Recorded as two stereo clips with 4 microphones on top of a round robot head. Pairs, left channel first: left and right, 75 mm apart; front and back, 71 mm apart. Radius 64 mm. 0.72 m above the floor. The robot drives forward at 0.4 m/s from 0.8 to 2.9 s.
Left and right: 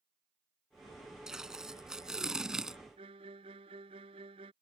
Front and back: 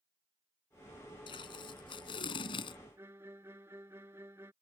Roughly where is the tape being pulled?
Ahead.